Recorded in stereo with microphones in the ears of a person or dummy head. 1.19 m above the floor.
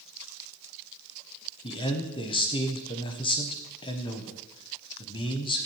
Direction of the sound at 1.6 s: 25° left (ahead or behind).